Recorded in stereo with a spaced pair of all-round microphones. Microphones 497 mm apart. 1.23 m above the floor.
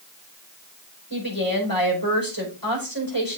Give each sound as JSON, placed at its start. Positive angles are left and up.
{"t": 1.1, "sound": "a woman speaking", "side_deg": 40, "distance_m": 4.5}